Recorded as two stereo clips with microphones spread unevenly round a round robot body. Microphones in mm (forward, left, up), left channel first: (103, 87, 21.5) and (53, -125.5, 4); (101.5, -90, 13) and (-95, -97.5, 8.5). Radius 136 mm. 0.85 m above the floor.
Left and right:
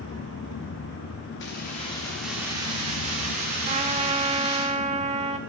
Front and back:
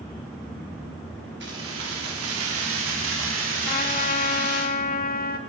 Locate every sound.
1.4 s keys jangling: 130° left, 1.0 m; by 4.7 s 150° right, 2.5 m
3.6 s a trumpet: 45° right, 0.9 m